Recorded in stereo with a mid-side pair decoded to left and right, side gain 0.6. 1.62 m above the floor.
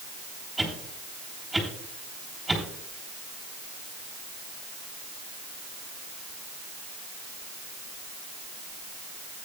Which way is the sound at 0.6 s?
5° right.